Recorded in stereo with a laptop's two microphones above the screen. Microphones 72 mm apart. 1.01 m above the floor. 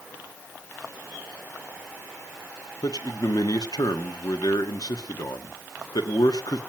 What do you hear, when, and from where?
2.8 s a man speaking: 75° left (ahead or behind), 1.6 m